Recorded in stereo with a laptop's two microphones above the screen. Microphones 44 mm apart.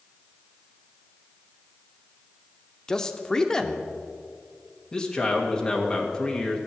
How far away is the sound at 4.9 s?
About 1.6 m.